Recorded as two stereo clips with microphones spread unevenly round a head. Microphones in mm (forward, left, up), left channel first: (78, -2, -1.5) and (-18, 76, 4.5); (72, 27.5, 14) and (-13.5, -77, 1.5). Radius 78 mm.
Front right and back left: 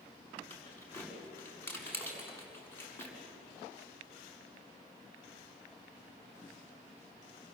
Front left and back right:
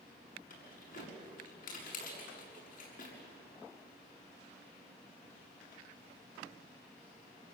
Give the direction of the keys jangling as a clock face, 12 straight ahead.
11 o'clock.